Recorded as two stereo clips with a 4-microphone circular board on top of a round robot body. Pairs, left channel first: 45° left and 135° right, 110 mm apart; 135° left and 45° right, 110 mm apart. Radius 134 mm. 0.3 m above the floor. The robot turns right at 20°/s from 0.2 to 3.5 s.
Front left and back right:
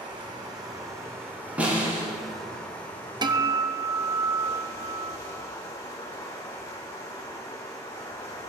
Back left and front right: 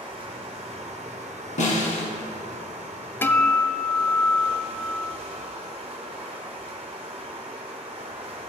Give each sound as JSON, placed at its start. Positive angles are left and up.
{"t": 0.0, "sound": "running water", "azimuth_deg": -85, "distance_m": 1.8}
{"t": 1.6, "sound": "a snare drum", "azimuth_deg": 145, "distance_m": 2.5}
{"t": 3.2, "sound": "a guitar", "azimuth_deg": -165, "distance_m": 0.8}